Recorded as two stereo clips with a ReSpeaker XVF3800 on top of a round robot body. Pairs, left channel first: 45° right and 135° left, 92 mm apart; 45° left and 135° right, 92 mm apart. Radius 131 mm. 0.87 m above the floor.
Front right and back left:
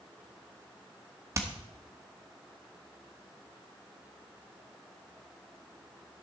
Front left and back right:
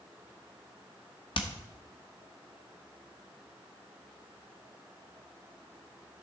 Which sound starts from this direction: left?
Hammering, at 1.4 s.